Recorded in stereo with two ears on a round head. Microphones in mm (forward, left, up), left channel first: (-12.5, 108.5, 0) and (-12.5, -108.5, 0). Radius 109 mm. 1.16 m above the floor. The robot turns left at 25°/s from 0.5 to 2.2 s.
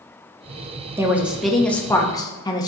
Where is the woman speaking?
170° right, 1.0 m; by 2.7 s 160° left, 1.0 m.